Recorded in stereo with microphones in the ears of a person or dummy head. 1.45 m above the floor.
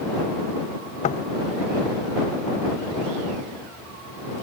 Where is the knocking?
35° left (ahead or behind).